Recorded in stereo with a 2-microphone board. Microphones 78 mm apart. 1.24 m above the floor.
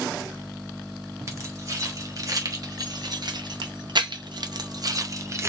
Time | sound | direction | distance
1.3 | keys jangling | 40° right (ahead or behind) | 1.8 m